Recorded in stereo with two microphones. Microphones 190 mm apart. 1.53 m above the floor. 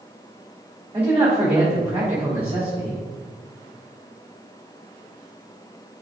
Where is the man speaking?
10° right (ahead or behind), 3.5 m.